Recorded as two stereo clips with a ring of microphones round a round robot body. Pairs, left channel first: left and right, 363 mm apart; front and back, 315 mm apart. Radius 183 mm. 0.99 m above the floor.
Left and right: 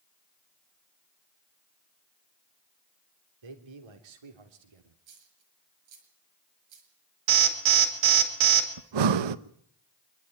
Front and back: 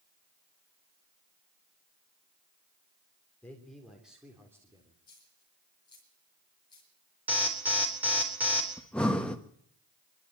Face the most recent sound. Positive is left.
turn(degrees=-85)